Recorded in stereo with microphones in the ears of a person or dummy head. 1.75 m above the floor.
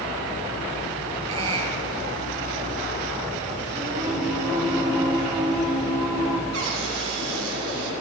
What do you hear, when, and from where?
1.3 s a squeak: 35° right (ahead or behind), 3 m
3.8 s singing: 10° right (ahead or behind), 3 m
6.5 s a cupboard door: 75° right (ahead or behind), 2.5 m